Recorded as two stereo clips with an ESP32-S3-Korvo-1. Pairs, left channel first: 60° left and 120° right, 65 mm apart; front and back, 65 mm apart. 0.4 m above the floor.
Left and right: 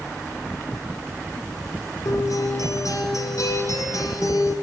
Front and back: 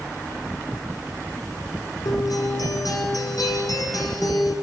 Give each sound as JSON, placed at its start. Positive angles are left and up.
{"t": 2.0, "sound": "a guitar", "azimuth_deg": 25, "distance_m": 6.0}